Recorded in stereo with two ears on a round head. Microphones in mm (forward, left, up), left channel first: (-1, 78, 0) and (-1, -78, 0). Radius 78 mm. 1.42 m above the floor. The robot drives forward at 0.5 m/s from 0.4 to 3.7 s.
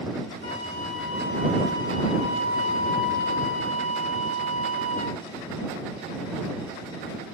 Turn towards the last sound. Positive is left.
turn(degrees=45)  # may be behind; listen again after turning